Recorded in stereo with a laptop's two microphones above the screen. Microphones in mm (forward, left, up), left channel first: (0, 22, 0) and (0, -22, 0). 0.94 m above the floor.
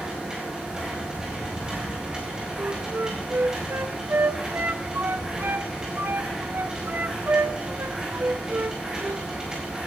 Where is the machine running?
15° right (ahead or behind), 3.5 m.